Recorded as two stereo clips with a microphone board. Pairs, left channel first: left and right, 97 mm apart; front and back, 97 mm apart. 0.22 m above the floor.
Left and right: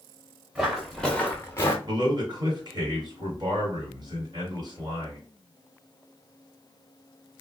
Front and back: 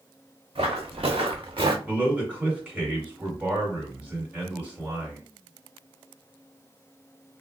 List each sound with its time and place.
0.6 s footsteps: 170° right, 1.1 m; by 1.8 s 145° left, 0.9 m
1.9 s a man speaking: 110° right, 2.0 m